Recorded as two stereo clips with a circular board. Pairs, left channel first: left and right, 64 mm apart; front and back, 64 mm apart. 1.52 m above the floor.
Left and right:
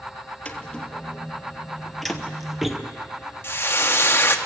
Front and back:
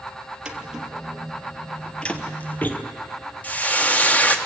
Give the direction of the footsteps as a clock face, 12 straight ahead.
8 o'clock.